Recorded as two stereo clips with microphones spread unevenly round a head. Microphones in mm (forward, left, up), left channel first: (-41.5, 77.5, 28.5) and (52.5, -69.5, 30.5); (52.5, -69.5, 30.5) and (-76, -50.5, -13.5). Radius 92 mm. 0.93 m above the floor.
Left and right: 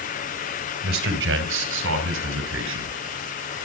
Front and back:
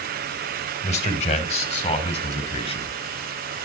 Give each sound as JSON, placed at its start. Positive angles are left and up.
{"t": 0.8, "sound": "a man speaking", "azimuth_deg": -45, "distance_m": 3.0}